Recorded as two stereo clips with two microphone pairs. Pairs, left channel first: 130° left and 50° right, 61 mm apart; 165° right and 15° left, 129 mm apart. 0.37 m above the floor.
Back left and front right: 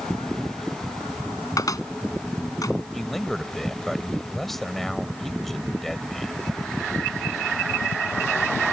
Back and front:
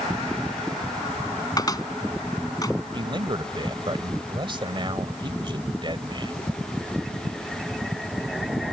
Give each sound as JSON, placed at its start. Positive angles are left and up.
{"t": 1.6, "sound": "a cupboard door", "azimuth_deg": 135}
{"t": 2.9, "sound": "a man speaking", "azimuth_deg": 45}